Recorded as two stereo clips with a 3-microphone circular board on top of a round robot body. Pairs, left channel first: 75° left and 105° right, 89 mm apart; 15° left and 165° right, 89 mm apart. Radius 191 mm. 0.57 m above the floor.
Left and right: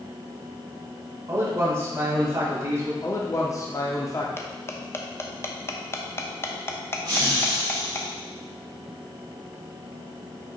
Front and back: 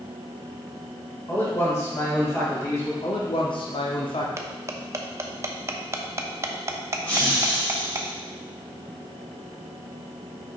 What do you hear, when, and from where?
1.3 s a man speaking: 45° right, 3 m
3.0 s a man speaking: 25° left, 1.4 m
4.4 s cutlery clinking: 135° left, 0.9 m
7.0 s laughter: 55° right, 3 m